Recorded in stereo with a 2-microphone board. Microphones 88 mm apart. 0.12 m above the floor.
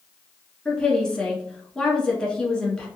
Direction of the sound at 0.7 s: 10° left (ahead or behind).